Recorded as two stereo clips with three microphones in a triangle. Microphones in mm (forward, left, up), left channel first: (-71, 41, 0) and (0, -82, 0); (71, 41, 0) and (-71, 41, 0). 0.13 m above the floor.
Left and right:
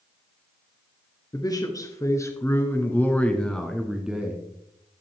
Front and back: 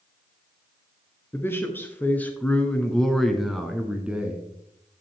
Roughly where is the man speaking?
Left.